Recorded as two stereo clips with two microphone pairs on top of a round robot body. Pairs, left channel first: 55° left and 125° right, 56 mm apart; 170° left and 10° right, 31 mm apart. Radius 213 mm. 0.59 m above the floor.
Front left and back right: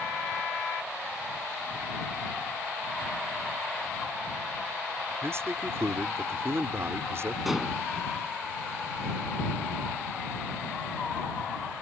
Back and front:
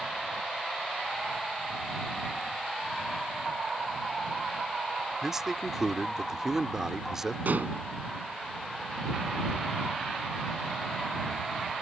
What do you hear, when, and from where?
5.2 s a man speaking: 85° right
7.5 s dishes clattering: 40° right